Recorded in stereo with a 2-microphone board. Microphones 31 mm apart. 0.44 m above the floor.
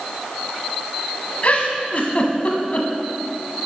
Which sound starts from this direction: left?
A giggle, at 1.4 s.